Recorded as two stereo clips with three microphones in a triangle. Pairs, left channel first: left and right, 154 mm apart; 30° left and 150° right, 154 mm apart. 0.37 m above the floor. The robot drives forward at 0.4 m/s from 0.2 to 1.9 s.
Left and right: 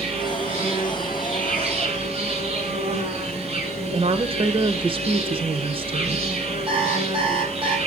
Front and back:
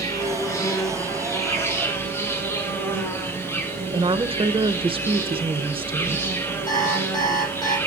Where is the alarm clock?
35° right, 6 m.